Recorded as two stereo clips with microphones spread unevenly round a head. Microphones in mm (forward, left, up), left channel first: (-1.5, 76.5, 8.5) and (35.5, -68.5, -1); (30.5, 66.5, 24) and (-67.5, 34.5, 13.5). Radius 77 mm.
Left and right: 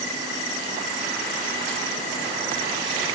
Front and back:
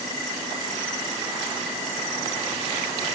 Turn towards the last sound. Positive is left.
No sound to turn to.